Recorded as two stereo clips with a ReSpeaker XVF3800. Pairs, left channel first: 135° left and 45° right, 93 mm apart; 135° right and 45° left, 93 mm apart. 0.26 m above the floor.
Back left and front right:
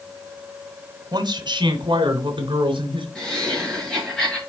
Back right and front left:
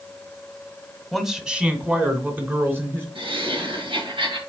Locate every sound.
1.1 s a man speaking: 45° right, 1.5 m; by 3.0 s 20° right, 3 m
3.1 s laughter: 50° left, 3.5 m